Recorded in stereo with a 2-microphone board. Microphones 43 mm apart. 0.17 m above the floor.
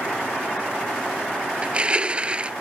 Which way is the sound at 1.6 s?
25° right (ahead or behind).